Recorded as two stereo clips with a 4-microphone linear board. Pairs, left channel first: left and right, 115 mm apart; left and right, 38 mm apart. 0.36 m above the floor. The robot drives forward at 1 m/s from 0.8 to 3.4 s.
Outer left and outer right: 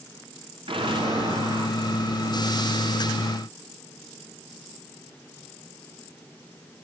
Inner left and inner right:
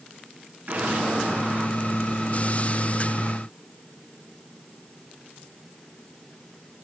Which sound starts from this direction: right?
An explosion, at 0.7 s.